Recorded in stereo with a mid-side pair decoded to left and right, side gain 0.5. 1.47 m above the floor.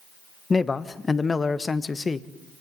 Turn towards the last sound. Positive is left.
turn(degrees=25)